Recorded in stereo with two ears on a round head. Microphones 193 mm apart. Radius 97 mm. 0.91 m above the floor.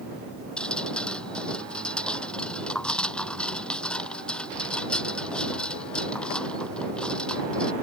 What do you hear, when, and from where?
0.6 s dripping: 5° left (ahead or behind)